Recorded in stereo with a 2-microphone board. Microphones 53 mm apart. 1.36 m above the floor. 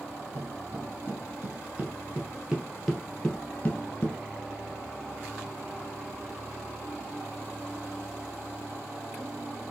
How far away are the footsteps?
About 2.5 m.